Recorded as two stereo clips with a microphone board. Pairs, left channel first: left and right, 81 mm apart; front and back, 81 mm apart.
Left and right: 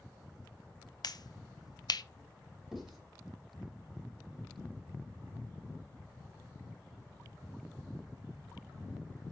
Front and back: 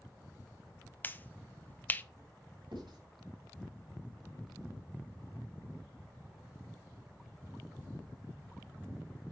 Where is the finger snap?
65° left, 0.6 m.